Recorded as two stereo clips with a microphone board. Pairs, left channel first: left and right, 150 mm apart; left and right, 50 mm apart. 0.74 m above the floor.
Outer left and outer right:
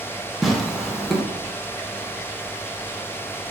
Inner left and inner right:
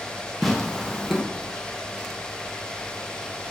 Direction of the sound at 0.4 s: Centre (ahead or behind).